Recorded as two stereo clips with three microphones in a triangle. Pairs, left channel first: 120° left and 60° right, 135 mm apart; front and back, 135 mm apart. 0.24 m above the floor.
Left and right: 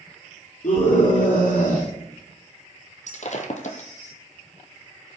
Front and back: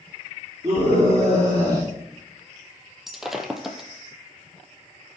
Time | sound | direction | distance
0.6 | a scream | 115° left | 5 m
3.1 | breaking glass | 95° left | 1.6 m